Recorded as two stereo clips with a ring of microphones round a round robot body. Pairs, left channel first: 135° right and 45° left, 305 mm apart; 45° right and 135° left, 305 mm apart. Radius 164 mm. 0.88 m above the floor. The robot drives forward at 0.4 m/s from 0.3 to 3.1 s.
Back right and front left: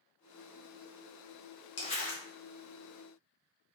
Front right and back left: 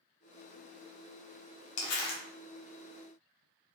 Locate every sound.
1.8 s crumpling: 65° right, 0.7 m; by 2.2 s 85° right, 0.6 m